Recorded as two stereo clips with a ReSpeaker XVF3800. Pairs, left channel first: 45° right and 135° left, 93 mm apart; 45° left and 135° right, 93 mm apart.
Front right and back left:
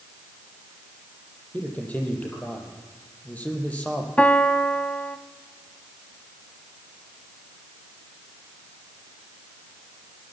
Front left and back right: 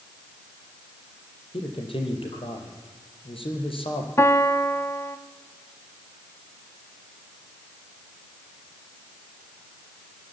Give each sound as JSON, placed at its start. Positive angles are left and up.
{"t": 1.5, "sound": "a man speaking", "azimuth_deg": 30, "distance_m": 6.0}
{"t": 4.2, "sound": "a piano", "azimuth_deg": 20, "distance_m": 1.0}